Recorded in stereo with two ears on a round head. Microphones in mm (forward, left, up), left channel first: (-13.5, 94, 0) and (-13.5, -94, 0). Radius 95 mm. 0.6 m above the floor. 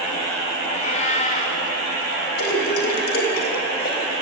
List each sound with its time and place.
0.7 s a cat meowing: 35° left (ahead or behind), 4.5 m
2.4 s a splash: 50° left (ahead or behind), 3.5 m